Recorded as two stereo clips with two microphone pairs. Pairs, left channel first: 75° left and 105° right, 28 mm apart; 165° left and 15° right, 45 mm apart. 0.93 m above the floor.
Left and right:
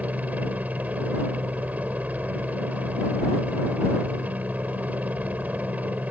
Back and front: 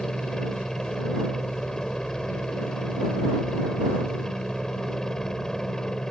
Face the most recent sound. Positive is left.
turn(degrees=-115)